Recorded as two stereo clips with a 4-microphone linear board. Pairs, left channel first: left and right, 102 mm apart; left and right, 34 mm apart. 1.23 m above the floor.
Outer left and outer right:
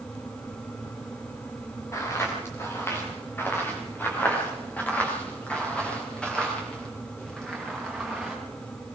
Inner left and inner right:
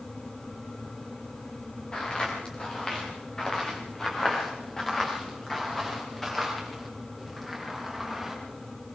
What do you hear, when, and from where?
1.9 s footsteps: 30° left (ahead or behind), 7.5 m; by 8.4 s 5° left (ahead or behind), 10 m